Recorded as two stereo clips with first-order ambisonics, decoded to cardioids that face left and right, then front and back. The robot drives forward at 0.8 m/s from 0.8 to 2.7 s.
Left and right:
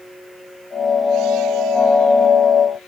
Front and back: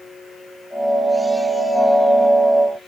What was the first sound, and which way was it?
Only background noise.